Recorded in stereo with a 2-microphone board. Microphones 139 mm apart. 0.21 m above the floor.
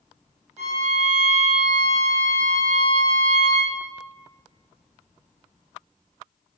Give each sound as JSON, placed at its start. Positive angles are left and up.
{"t": 0.6, "sound": "a violin", "side_deg": -55, "distance_m": 1.1}